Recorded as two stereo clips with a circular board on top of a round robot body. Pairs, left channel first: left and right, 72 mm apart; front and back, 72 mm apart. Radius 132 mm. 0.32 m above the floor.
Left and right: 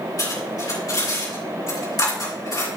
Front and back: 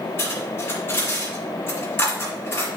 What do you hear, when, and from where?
0.2 s cutlery clinking: 55° left, 5 m